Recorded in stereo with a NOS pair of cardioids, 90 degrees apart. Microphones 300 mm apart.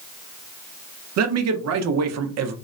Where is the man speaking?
60° right, 0.7 m.